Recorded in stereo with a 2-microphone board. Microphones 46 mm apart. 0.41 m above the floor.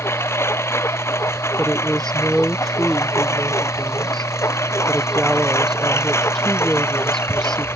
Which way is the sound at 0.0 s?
65° left (ahead or behind).